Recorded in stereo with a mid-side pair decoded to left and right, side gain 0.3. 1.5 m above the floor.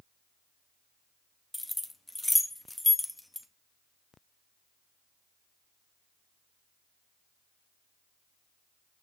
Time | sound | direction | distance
1.5 | keys jangling | 15° left | 1.9 m